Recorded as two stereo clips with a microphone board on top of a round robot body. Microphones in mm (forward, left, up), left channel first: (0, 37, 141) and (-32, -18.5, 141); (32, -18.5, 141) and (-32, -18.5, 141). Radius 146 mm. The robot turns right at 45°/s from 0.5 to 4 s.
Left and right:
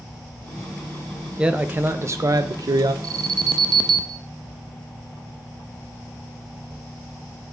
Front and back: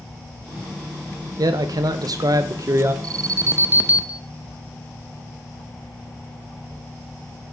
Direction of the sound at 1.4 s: 165° left.